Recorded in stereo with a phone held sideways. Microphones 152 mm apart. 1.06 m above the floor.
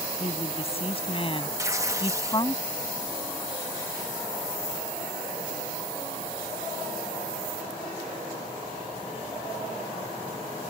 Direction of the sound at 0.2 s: 45° left (ahead or behind).